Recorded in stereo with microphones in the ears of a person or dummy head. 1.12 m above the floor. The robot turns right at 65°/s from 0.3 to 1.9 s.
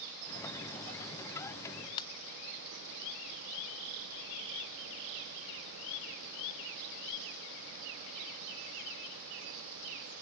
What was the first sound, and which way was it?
A ringtone, 25° left (ahead or behind).